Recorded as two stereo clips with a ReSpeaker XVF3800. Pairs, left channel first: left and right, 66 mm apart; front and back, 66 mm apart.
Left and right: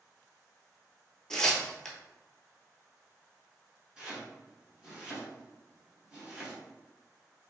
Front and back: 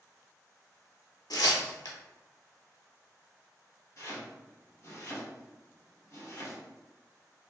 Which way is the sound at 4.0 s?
20° right.